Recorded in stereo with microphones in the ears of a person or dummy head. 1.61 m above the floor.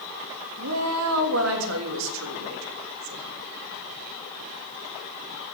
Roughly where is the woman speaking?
Right.